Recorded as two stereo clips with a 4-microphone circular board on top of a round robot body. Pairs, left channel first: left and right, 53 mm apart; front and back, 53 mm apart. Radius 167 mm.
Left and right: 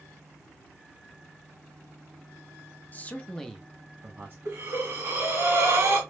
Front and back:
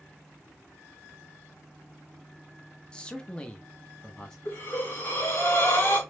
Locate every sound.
2.9 s a man speaking: 60° left, 1.2 m; by 4.3 s 75° right, 1.3 m
4.5 s breathing: 50° right, 2 m